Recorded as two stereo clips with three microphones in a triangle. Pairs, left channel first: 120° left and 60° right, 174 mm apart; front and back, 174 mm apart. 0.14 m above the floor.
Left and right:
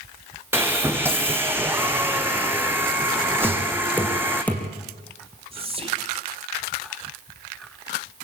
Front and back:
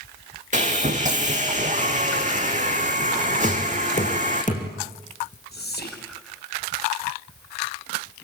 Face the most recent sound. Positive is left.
turn(degrees=-5)